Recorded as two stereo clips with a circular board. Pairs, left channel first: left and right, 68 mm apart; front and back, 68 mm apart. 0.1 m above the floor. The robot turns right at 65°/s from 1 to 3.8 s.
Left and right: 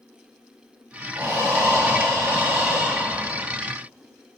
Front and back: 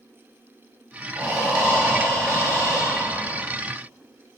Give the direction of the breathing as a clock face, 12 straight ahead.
4 o'clock.